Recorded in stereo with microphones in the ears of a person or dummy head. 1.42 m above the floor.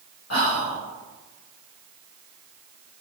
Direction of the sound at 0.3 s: 70° left (ahead or behind).